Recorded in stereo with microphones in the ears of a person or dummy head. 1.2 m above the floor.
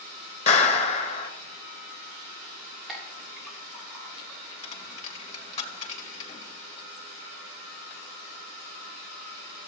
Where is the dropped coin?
45° left (ahead or behind), 2.5 m.